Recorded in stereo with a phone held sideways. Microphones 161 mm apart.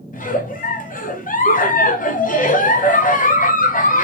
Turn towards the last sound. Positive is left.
turn(degrees=55)  # may be behind; listen again after turning